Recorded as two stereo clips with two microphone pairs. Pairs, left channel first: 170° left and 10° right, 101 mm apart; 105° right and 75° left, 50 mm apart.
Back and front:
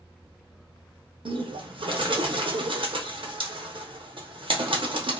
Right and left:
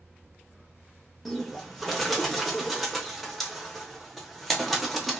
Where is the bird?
15° right, 0.6 m.